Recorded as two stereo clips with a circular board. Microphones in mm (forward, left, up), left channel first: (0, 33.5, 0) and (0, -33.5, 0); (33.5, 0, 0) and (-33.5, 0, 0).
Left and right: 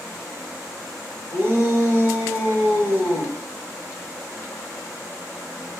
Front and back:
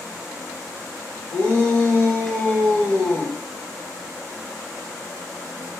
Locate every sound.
1.3 s a shout: 50° right, 2.5 m